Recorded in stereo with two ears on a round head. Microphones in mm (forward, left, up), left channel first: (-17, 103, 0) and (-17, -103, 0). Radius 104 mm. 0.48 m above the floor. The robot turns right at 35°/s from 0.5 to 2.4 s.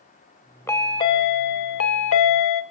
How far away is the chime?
About 0.6 m.